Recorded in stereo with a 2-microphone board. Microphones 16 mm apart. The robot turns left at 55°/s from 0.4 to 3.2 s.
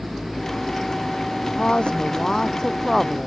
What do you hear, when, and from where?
1.6 s a woman speaking: 90° left; by 3.3 s straight ahead